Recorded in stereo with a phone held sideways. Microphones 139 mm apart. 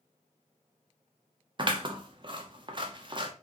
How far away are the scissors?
About 0.7 m.